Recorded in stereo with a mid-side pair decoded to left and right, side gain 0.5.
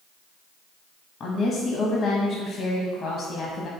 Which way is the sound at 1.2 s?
55° left.